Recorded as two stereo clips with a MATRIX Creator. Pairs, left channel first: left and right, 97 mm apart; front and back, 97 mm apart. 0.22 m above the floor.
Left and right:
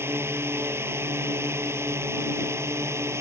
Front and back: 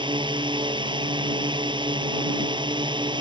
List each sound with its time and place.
0.0 s a drone: 155° right; by 3.2 s 150° right